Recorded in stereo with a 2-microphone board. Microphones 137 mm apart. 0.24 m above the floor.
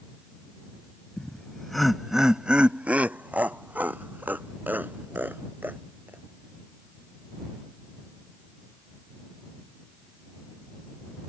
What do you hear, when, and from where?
1.2 s laughter: 5° left (ahead or behind); by 6.2 s 15° right (ahead or behind)